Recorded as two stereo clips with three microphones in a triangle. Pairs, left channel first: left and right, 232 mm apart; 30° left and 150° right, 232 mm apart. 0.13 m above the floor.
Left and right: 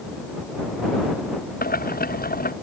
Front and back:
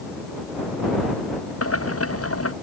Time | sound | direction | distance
1.6 | boiling | 40° left | ?